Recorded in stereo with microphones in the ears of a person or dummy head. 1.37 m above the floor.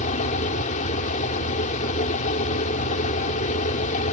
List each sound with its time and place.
0.0 s a fan: 45° left (ahead or behind)